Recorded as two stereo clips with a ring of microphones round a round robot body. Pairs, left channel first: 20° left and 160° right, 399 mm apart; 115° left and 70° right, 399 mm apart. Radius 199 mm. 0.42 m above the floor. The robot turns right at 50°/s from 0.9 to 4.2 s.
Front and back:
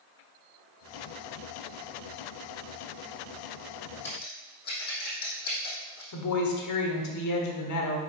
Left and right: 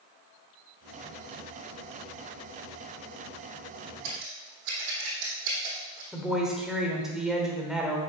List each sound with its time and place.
4.0 s scissors: 55° right, 3.5 m; by 6.0 s 45° right, 3.5 m
6.1 s a woman speaking: 20° left, 1.3 m